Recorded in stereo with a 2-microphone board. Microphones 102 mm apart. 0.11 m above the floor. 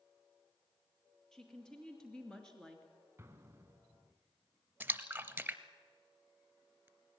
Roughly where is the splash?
Centre.